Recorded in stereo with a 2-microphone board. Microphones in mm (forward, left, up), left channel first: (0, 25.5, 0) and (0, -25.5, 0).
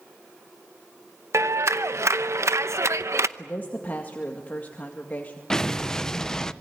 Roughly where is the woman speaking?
Left.